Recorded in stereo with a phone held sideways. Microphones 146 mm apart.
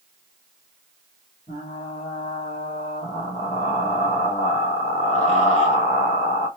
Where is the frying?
45° left (ahead or behind), 2 m.